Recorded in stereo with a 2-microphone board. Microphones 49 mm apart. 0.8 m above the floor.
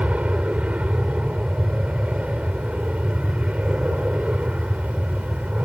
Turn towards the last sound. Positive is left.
turn(degrees=-25)  # may be behind; listen again after turning